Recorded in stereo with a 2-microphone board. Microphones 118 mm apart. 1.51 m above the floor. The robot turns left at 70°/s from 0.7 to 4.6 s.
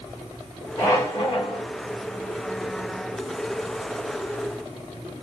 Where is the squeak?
155° left, 3 m; by 1.6 s 95° left, 3 m.